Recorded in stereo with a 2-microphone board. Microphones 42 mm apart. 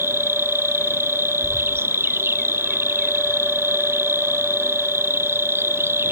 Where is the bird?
10° left (ahead or behind).